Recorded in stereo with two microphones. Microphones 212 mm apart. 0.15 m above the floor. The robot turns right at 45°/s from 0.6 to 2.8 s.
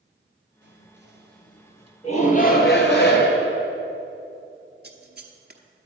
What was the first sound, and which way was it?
Whispering, 85° right.